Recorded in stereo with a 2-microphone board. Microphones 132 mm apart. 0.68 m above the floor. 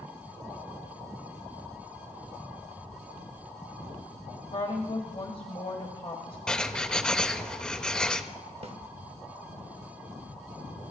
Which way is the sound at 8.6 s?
50° right (ahead or behind).